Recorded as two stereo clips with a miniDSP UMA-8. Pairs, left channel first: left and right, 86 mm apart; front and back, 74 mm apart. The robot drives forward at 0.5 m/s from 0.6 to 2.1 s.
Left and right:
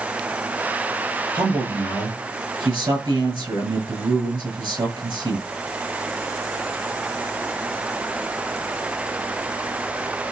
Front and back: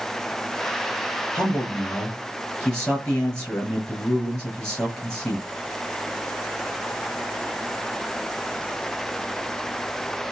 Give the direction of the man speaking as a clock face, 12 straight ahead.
2 o'clock.